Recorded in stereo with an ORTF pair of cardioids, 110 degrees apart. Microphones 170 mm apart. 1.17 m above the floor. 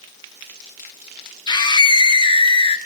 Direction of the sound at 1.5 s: 25° left.